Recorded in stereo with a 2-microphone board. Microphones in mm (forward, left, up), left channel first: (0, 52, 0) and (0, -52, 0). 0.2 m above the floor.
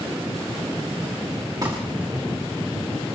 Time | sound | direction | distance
1.6 | crumpling | 35° right (ahead or behind) | 8 m